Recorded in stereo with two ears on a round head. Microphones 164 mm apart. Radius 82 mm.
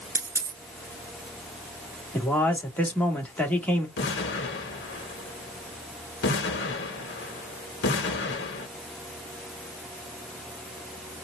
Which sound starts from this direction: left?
An explosion, at 4.0 s.